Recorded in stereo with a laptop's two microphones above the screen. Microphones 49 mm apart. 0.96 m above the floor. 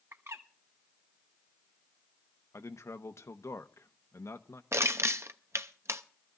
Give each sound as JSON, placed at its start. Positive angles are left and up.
{"t": 0.1, "sound": "a bird", "side_deg": -65, "distance_m": 1.0}
{"t": 2.5, "sound": "a man speaking", "side_deg": 70, "distance_m": 0.8}
{"t": 4.7, "sound": "crushing", "side_deg": -60, "distance_m": 0.5}